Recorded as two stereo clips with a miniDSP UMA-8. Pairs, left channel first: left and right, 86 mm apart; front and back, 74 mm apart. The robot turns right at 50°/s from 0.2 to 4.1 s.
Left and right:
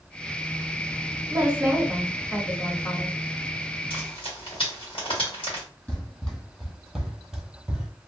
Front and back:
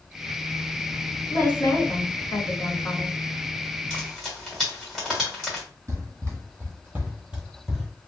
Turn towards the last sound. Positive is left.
turn(degrees=-85)